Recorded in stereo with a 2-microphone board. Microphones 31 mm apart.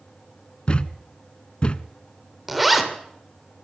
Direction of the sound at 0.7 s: 40° left (ahead or behind).